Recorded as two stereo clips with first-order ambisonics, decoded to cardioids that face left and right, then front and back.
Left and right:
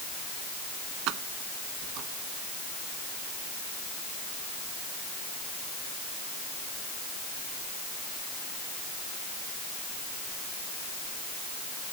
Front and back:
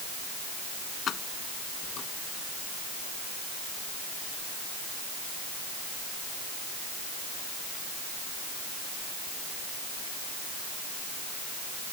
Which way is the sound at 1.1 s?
55° right.